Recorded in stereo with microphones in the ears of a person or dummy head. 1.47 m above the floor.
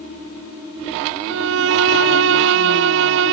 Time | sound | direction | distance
1.3 | a violin | 70° right (ahead or behind) | ?